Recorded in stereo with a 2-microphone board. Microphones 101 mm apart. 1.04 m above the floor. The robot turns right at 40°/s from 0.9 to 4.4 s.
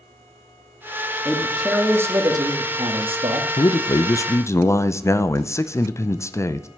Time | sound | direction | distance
1.2 | a man speaking | 175° left | 1.7 m
3.6 | a man speaking | 100° left | 0.6 m